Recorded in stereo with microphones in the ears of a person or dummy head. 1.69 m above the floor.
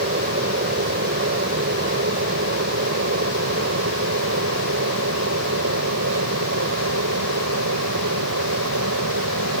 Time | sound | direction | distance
0.0 | an aircraft | 45° right (ahead or behind) | ?